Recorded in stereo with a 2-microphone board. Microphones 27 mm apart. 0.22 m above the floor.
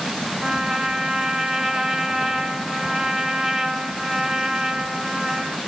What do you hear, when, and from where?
0.4 s a trumpet: 10° right (ahead or behind), 2.5 m